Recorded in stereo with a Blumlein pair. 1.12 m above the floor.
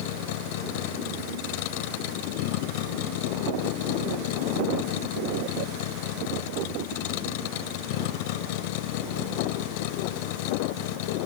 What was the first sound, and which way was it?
A vehicle, 50° left.